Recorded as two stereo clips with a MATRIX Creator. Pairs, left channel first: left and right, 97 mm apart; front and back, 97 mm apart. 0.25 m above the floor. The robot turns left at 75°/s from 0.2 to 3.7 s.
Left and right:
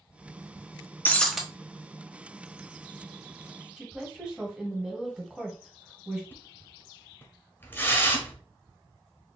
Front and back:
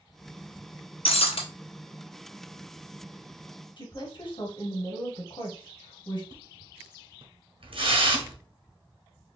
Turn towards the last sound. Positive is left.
turn(degrees=155)